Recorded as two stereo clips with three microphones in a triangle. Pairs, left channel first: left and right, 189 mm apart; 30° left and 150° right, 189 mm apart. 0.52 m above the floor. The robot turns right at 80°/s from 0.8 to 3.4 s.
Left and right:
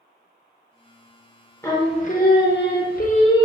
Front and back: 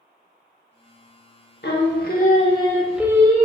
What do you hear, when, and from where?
1.6 s singing: 15° left, 0.7 m; by 3.5 s 160° left, 0.7 m